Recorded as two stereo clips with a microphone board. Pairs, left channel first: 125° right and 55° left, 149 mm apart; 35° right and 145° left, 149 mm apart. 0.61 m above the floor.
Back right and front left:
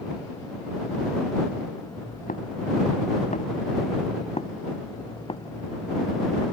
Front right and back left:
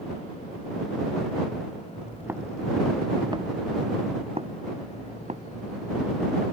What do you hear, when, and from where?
2.0 s footsteps: 135° right; by 6.4 s 175° left